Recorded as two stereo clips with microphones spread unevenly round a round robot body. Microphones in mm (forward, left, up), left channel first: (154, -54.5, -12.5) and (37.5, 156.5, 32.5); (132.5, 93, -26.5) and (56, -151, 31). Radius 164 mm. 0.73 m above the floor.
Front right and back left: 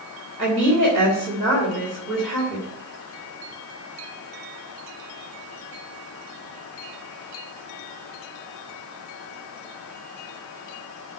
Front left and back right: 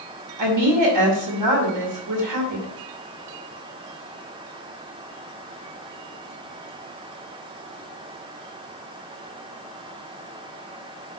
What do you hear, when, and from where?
0.4 s a woman speaking: 145° right, 2.5 m